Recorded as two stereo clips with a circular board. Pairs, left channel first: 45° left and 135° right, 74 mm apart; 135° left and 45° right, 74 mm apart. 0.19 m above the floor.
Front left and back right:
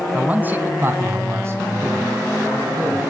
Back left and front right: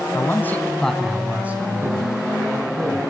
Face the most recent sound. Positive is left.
turn(degrees=-80)